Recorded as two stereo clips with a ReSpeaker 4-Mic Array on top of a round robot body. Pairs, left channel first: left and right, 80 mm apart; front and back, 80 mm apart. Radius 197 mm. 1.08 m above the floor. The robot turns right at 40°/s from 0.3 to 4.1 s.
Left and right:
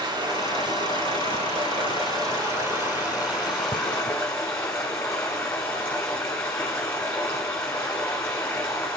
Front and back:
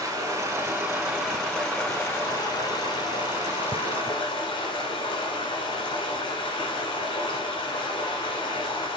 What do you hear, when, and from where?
0.0 s running water: 120° right, 1.2 m; by 9.0 s 30° left, 1.2 m